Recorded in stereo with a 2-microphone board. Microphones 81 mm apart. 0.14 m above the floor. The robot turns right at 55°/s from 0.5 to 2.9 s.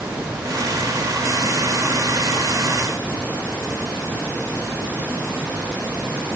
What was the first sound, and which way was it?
Only background noise.